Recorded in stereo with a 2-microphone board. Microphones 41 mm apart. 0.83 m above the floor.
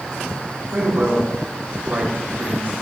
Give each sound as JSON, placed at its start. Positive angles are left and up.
{"t": 0.7, "sound": "a man speaking", "side_deg": -55, "distance_m": 4.0}